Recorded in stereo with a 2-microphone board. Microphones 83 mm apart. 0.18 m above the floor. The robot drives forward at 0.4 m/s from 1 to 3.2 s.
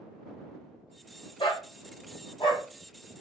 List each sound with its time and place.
1.4 s a dog barking: 80° left, 1.7 m; by 2.6 s 75° left (ahead or behind), 1.8 m